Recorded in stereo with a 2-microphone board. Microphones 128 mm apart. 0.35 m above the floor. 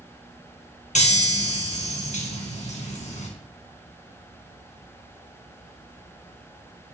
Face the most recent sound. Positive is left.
turn(degrees=65)  # may be behind; listen again after turning